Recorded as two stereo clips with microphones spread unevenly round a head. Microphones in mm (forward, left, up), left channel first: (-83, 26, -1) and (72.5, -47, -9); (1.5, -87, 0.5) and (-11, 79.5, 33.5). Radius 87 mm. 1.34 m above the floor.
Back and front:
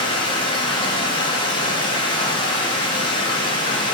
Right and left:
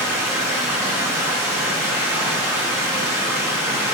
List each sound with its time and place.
0.0 s running water: 135° left, 0.8 m